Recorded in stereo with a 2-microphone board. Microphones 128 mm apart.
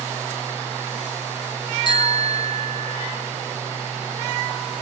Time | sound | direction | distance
1.9 | a bicycle bell | 40° left (ahead or behind) | 3.5 m